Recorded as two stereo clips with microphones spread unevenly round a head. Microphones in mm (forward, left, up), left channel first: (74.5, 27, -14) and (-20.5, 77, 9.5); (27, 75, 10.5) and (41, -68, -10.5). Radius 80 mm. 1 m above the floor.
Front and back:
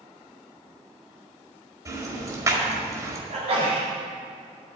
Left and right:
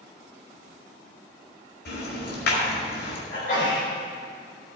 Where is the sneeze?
130° left, 4.5 m.